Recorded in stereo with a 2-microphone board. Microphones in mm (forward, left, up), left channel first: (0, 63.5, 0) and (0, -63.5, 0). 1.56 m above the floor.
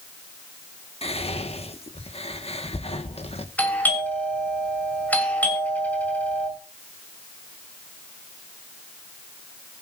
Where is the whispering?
50° left (ahead or behind), 1.4 m.